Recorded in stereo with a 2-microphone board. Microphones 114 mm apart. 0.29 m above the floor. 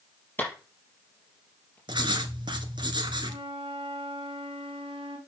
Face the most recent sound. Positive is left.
turn(degrees=-60)  # may be behind; listen again after turning